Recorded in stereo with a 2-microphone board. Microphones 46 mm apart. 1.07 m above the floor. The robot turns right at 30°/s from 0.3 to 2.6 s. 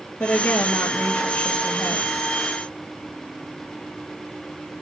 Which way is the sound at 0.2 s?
85° left.